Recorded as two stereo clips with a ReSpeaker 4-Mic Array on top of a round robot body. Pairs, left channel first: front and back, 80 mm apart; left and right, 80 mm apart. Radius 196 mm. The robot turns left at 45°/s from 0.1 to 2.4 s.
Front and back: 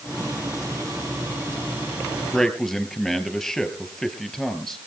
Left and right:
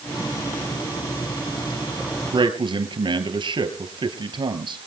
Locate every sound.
2.3 s a man speaking: 85° right, 3.5 m; by 4.8 s 90° right, 3.5 m